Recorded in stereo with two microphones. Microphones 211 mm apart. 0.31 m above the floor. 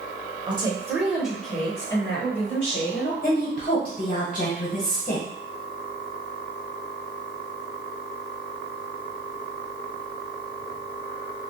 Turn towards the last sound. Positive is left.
turn(degrees=40)  # may be behind; listen again after turning